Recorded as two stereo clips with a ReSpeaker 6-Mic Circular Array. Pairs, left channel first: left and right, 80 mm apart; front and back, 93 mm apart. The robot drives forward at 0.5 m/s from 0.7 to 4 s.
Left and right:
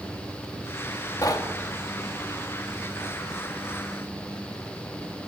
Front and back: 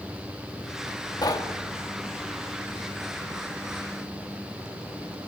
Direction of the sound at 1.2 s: 45° left.